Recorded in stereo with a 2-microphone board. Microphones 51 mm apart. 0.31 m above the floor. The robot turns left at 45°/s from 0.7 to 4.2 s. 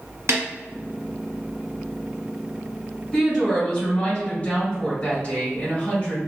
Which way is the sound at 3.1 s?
165° left.